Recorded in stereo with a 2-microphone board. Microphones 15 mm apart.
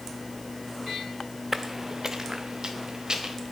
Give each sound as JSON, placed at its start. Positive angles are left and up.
{"t": 1.5, "sound": "footsteps", "side_deg": -25, "distance_m": 0.8}